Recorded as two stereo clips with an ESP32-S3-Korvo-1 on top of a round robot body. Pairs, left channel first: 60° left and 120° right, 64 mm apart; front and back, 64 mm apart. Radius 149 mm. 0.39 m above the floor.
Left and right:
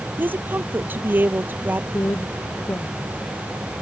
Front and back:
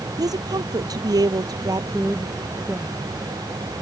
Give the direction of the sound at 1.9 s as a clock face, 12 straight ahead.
8 o'clock.